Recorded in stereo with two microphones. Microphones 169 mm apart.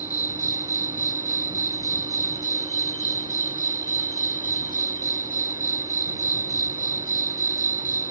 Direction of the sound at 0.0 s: 60° left (ahead or behind).